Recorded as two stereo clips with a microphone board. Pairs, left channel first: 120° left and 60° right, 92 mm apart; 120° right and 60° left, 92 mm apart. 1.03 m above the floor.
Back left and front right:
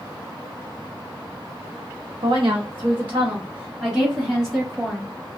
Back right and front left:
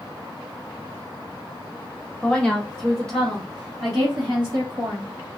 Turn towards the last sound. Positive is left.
turn(degrees=35)